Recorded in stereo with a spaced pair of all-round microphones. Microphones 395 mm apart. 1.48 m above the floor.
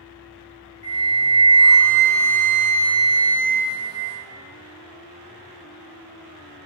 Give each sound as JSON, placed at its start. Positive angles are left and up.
{"t": 0.8, "sound": "a flute", "side_deg": -15, "distance_m": 0.7}